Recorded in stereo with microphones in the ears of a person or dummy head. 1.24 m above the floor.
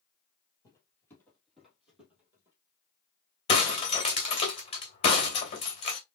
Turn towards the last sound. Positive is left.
turn(degrees=25)  # may be behind; listen again after turning